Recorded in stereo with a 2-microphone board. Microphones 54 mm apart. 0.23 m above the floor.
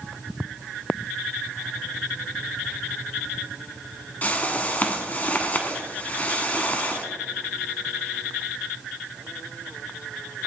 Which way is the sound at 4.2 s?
30° left (ahead or behind).